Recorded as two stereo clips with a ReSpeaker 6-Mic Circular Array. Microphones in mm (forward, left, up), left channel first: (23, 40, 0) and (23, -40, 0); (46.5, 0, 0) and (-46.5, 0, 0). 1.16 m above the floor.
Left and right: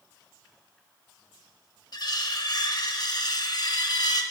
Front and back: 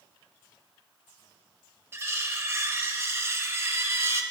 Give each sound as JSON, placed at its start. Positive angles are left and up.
{"t": 1.9, "sound": "cutlery clinking", "azimuth_deg": 120, "distance_m": 0.7}